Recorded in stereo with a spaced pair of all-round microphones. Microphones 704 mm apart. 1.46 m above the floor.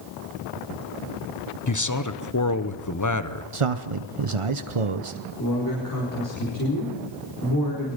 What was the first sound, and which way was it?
A man speaking, 25° left (ahead or behind).